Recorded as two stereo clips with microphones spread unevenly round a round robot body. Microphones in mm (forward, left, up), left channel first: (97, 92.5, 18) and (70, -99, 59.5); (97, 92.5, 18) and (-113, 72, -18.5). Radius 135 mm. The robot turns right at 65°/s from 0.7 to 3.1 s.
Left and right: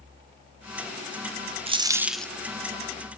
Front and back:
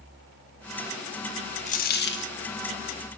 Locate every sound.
1.7 s a dropped coin: 50° right, 0.5 m; by 2.3 s 5° right, 0.5 m